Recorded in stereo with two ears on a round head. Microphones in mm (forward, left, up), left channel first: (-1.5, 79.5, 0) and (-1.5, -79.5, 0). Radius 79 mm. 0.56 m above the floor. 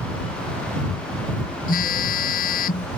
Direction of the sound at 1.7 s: 50° left (ahead or behind).